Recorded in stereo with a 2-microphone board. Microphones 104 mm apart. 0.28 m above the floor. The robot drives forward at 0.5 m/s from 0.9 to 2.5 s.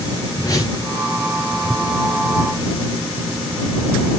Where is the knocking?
I don't hear knocking.